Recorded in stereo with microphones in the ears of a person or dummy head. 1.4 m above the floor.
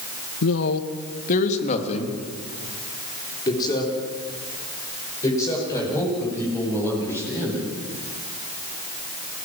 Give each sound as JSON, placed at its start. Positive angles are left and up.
{"t": 0.4, "sound": "a man speaking", "side_deg": 70, "distance_m": 1.6}